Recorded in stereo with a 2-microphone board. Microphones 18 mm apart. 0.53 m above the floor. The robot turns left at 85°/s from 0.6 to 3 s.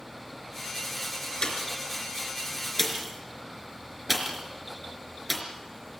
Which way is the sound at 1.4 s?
45° left (ahead or behind).